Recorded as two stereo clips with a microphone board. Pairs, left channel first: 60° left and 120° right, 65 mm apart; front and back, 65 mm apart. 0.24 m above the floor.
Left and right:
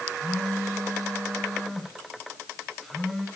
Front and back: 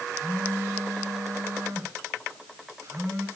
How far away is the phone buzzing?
About 2.5 m.